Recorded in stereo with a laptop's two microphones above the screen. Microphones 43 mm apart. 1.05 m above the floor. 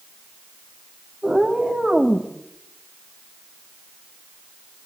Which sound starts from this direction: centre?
A cat meowing, at 1.2 s.